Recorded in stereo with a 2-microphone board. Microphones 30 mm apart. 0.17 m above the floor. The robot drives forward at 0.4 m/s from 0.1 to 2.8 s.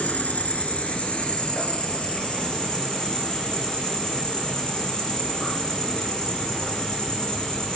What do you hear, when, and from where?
0.0 s an insect: 55° left (ahead or behind), 0.7 m; by 7.8 s 20° left (ahead or behind), 1.5 m